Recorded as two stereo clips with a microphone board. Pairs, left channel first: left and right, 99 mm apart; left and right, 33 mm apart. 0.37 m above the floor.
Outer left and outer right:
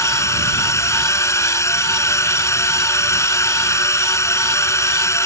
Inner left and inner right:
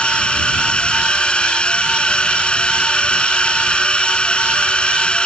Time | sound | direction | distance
0.0 | a drone | 30° left (ahead or behind) | ?